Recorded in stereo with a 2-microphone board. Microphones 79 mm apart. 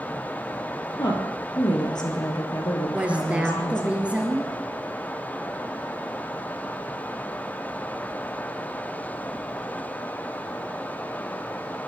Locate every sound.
0.9 s a woman speaking: 60° left (ahead or behind), 3 m
2.9 s a woman speaking: 15° right (ahead or behind), 2.5 m